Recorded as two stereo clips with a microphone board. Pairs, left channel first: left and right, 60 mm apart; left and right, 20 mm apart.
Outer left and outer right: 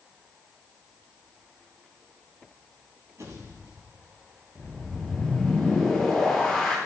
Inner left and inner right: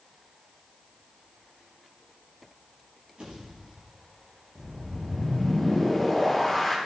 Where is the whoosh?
Centre (ahead or behind), 4.5 m.